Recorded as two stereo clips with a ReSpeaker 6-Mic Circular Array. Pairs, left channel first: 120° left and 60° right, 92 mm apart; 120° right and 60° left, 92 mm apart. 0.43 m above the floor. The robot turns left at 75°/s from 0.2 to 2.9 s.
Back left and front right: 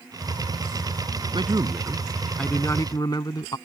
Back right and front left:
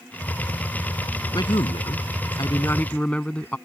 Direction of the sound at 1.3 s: 80° right.